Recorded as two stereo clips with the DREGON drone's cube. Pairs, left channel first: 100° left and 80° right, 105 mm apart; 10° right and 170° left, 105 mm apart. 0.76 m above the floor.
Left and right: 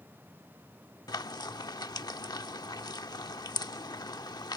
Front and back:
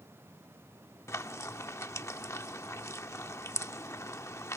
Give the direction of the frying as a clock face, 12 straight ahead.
10 o'clock.